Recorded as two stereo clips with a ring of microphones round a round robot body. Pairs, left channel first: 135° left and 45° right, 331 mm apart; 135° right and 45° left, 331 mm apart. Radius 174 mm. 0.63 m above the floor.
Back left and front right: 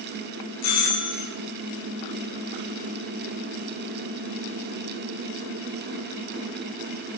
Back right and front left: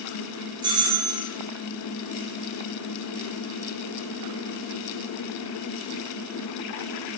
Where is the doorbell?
120° left, 8 m.